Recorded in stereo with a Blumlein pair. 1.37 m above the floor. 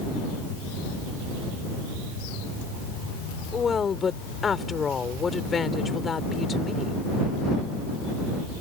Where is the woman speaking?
15° left.